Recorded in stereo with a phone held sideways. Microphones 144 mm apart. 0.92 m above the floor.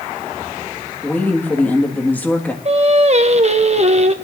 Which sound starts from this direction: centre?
A woman speaking, at 1.0 s.